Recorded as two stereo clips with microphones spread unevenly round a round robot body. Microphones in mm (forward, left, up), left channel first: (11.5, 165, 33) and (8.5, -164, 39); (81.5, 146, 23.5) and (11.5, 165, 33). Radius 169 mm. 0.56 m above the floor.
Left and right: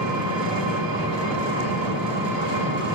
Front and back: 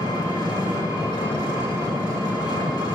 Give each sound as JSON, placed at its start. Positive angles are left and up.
{"t": 0.0, "sound": "an engine running", "azimuth_deg": -70, "distance_m": 2.5}